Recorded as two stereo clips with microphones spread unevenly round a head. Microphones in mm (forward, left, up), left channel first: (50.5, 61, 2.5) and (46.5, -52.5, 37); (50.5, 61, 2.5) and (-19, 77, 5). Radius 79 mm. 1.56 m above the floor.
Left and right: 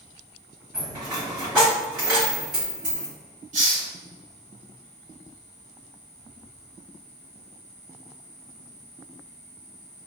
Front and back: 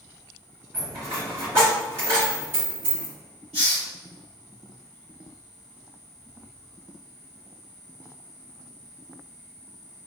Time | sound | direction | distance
0.7 | a dropped coin | 155° right | 1.8 m
3.5 | a hiss | 85° right | 1.3 m